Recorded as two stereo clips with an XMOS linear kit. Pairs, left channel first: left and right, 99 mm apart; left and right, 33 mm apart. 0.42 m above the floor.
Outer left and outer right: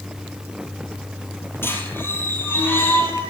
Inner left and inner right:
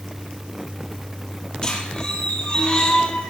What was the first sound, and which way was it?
A squeak, 25° left (ahead or behind).